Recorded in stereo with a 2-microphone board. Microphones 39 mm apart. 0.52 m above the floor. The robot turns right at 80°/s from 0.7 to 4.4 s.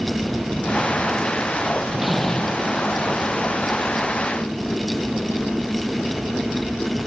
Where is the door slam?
20° right; by 2.7 s 50° left.